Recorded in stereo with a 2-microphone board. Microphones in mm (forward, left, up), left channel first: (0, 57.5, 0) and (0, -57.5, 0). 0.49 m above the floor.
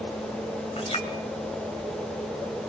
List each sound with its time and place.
0.8 s a clink: 60° left (ahead or behind), 1.8 m